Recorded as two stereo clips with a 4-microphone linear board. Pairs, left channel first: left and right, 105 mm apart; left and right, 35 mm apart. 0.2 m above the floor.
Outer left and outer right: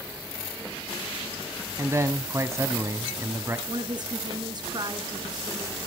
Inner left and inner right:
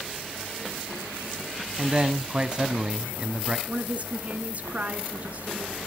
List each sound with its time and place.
1.8 s a man speaking: 25° right (ahead or behind), 1.2 m
3.7 s a woman speaking: 45° right (ahead or behind), 1.7 m